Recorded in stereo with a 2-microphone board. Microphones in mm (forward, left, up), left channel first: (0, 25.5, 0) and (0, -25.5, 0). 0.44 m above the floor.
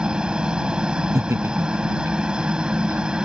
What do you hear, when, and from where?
0.0 s a helicopter: 20° right (ahead or behind)
1.1 s laughter: 60° right (ahead or behind)